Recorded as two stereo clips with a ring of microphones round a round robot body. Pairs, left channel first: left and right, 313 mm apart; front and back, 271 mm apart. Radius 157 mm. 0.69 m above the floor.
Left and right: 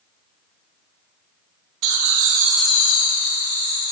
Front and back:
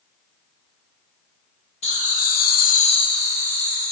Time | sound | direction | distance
1.8 | laughter | 70° right | 1.3 m